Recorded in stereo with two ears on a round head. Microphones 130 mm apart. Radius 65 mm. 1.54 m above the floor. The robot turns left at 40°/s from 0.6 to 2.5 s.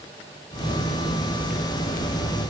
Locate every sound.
Only background noise.